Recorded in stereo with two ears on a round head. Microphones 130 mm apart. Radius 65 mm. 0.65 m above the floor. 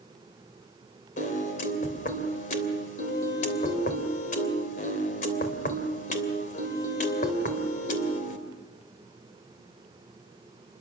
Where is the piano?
55° left (ahead or behind), 3 m.